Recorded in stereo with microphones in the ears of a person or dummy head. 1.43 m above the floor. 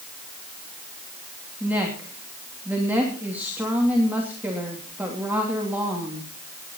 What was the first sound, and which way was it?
A woman speaking, 10° right (ahead or behind).